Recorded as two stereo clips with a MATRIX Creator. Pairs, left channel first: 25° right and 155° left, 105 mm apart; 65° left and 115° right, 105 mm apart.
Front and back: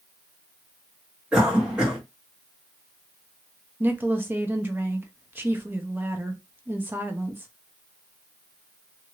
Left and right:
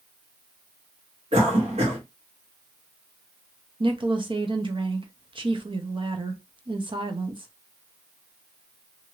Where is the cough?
120° right, 1.7 m.